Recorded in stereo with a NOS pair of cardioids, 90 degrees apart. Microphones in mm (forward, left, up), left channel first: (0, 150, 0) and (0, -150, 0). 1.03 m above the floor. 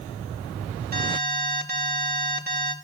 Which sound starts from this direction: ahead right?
An alarm, at 0.9 s.